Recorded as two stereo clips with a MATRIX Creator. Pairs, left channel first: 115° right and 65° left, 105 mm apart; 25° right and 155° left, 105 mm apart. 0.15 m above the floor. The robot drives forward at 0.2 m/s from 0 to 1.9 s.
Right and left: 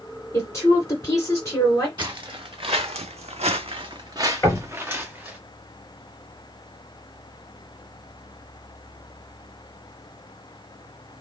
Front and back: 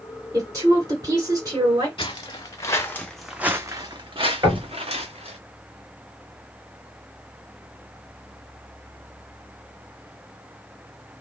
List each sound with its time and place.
0.3 s a woman speaking: 160° right, 1.9 m; by 1.9 s 165° right, 2 m
2.0 s footsteps: 20° left, 1.0 m; by 5.4 s 145° left, 1.2 m
4.4 s knocking: 170° right, 2.5 m